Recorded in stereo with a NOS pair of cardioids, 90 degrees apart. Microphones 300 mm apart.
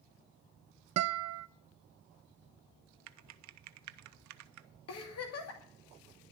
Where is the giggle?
55° left, 2.5 m.